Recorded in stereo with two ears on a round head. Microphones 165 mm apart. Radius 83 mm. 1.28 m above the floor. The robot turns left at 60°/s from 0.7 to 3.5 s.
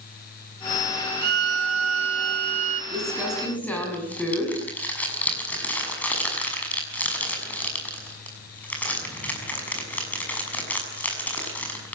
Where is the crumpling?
25° right (ahead or behind), 6.5 m; by 11.9 s 10° left (ahead or behind), 6.5 m.